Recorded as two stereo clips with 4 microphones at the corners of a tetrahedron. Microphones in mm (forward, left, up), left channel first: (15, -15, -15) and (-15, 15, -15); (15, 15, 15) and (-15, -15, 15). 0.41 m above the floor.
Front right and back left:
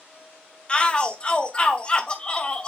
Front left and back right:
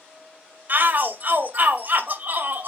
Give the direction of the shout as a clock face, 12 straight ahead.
3 o'clock.